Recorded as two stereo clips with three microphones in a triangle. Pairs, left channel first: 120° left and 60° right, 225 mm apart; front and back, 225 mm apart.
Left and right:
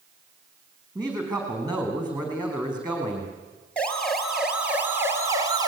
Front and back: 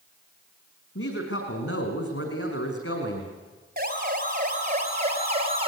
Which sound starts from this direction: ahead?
A woman speaking, at 0.9 s.